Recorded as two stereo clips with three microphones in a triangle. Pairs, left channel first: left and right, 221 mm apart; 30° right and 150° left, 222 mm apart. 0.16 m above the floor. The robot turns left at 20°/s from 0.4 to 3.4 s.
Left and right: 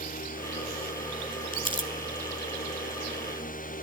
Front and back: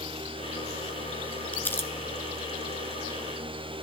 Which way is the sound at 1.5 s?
50° left.